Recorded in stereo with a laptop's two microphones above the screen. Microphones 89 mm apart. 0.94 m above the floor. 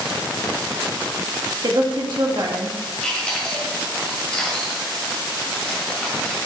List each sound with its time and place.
1.6 s a woman speaking: 55° right (ahead or behind), 1.7 m
3.0 s chewing: 10° left (ahead or behind), 1.8 m